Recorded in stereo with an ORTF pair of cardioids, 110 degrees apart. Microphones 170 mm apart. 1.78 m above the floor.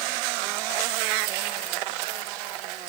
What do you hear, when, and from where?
Only background noise.